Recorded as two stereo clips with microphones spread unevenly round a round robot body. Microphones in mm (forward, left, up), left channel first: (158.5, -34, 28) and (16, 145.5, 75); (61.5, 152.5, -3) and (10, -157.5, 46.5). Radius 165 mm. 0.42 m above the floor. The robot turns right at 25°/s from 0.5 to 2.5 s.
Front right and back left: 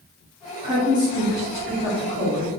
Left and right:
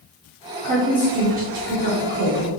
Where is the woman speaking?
165° right, 0.9 m; by 2.5 s 120° right, 0.9 m.